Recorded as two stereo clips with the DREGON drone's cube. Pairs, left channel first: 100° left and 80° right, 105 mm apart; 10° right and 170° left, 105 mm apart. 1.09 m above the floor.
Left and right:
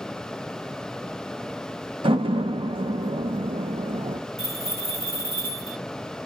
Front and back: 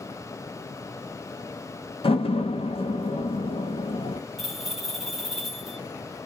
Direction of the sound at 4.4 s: 105° right.